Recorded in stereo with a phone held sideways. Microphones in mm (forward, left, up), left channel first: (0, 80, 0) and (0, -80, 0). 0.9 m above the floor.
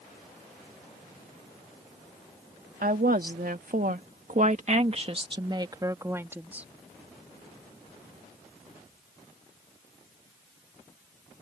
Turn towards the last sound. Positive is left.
turn(degrees=-10)  # may be behind; listen again after turning